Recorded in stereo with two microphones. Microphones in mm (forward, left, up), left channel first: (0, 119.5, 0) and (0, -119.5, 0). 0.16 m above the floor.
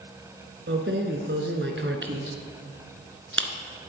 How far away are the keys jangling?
About 1.2 m.